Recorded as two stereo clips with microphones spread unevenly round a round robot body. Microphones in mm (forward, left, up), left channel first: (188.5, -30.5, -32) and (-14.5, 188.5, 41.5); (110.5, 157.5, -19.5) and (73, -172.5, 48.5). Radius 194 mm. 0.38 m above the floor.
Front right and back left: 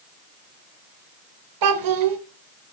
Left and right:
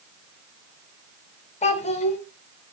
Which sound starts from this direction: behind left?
A child speaking, at 1.6 s.